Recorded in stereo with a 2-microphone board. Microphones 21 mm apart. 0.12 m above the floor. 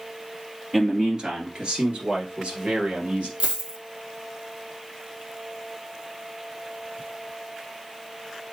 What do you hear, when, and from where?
0.7 s a man speaking: 25° right (ahead or behind), 1.8 m; by 3.3 s 60° right (ahead or behind), 2.5 m
3.4 s a dropped coin: 45° right (ahead or behind), 1.3 m